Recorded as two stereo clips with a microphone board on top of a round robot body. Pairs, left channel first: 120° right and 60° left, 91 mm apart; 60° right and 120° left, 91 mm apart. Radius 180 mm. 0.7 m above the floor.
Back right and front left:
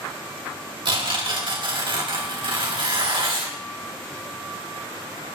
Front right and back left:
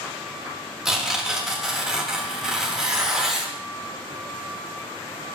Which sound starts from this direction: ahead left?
Tearing paper, at 0.8 s.